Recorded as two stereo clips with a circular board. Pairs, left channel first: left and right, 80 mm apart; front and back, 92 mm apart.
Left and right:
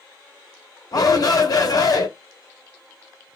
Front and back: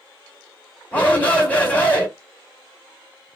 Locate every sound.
0.9 s a shout: 70° left, 2.5 m